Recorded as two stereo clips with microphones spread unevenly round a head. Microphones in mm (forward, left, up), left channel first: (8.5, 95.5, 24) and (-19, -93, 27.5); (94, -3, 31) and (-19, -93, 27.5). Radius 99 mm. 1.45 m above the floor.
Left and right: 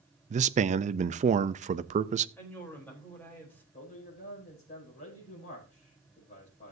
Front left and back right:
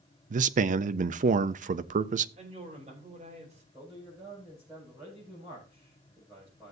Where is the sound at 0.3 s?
145° right, 0.6 m.